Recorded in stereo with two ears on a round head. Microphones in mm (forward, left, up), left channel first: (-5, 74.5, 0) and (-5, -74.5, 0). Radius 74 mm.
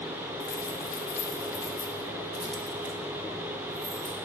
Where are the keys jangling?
55° left (ahead or behind), 1.1 m; by 4.2 s 30° right (ahead or behind), 1.6 m.